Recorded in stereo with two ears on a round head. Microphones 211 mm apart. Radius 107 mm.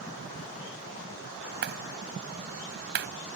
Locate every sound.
1.6 s a clap: 45° right (ahead or behind)